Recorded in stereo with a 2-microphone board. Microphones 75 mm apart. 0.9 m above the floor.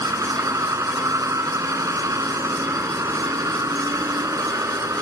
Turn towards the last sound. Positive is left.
turn(degrees=-45)  # may be behind; listen again after turning